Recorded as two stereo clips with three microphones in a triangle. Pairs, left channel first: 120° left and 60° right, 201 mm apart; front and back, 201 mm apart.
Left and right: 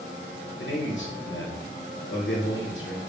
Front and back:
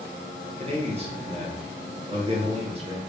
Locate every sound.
0.6 s a man speaking: 120° left, 1.1 m